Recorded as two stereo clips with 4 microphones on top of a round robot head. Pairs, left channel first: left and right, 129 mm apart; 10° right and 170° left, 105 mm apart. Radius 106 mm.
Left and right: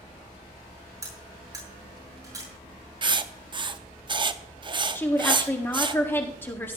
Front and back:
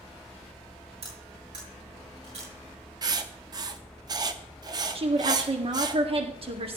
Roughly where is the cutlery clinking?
Behind right.